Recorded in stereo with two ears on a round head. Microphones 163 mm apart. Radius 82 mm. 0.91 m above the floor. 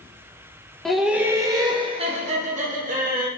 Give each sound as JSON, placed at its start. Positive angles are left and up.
{"t": 0.8, "sound": "laughter", "side_deg": 0, "distance_m": 0.8}